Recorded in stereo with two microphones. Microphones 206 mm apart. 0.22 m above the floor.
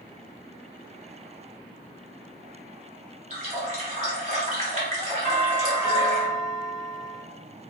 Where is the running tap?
40° right (ahead or behind), 1.3 m.